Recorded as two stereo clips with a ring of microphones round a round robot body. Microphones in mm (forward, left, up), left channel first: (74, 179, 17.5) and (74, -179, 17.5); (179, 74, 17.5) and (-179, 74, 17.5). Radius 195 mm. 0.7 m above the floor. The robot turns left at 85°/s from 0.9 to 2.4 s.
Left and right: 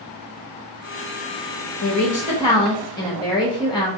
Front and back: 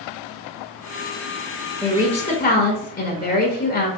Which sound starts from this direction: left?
A woman speaking, at 1.8 s.